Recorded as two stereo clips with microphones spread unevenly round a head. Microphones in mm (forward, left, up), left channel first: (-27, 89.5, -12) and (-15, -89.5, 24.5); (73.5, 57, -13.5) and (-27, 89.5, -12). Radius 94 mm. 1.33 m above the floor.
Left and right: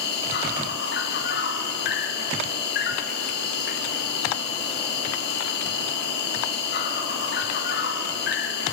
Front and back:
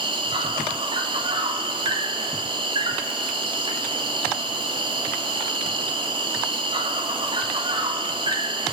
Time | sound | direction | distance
0.0 | an insect | 125° left | 3 m